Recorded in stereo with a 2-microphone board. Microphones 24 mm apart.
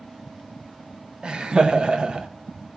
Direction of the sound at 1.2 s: 40° right (ahead or behind).